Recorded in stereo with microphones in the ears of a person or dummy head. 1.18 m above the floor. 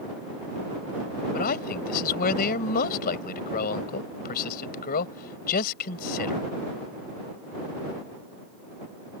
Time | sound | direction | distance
1.3 | a man speaking | 55° left (ahead or behind) | ?